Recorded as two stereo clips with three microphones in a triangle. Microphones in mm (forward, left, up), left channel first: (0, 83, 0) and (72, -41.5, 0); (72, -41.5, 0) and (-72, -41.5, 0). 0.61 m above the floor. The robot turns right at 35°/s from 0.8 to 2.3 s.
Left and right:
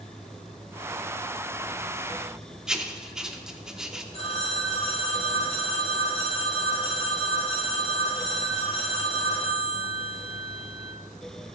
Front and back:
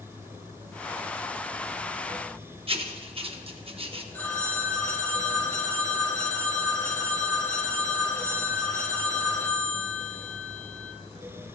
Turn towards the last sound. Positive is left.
turn(degrees=75)